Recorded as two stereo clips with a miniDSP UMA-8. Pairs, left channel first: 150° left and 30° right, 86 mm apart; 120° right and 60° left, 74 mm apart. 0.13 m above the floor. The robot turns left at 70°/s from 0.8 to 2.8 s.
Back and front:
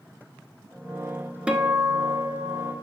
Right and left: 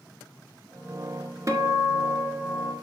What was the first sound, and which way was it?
A guitar, 45° left.